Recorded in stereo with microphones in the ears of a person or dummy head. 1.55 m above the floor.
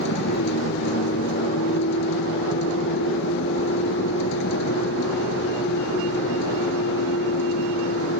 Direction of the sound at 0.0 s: 65° left (ahead or behind).